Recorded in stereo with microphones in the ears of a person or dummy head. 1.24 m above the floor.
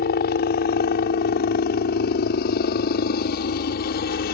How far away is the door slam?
No door slam in this recording.